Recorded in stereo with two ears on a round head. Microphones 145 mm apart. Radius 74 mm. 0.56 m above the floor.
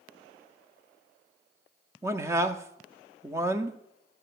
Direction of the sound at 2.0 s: 15° right (ahead or behind).